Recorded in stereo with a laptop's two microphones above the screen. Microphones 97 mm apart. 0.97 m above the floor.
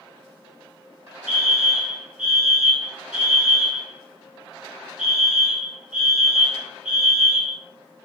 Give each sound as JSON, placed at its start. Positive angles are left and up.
{"t": 1.3, "sound": "a fire alarm", "side_deg": -5, "distance_m": 1.7}